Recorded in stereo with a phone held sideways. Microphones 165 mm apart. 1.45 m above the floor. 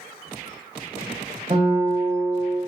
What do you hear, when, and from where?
1.5 s a guitar: 35° right (ahead or behind), 0.7 m